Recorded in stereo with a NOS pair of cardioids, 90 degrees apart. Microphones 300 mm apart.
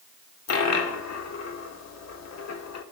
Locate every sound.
0.5 s a dropped coin: 65° left, 2 m